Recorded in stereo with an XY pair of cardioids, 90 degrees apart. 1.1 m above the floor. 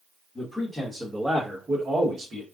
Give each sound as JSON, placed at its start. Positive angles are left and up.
{"t": 0.3, "sound": "a man speaking", "azimuth_deg": 10, "distance_m": 1.5}